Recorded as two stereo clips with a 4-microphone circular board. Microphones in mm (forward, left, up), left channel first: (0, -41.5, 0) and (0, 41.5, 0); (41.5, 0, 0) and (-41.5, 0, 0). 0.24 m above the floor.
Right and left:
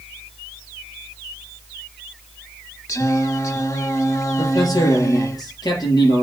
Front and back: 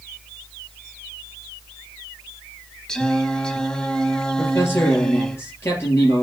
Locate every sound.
2.9 s singing: 75° right, 0.8 m
4.4 s a man speaking: 55° right, 4.5 m